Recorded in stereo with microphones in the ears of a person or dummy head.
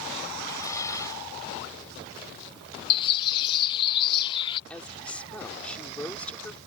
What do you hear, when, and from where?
0.4 s dishes clattering: 20° left (ahead or behind)
2.9 s a bird: 30° left (ahead or behind)
4.7 s a woman speaking: 5° left (ahead or behind)